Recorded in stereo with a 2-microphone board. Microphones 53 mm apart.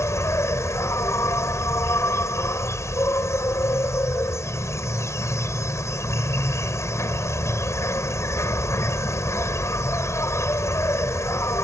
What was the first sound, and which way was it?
An insect, 65° left (ahead or behind).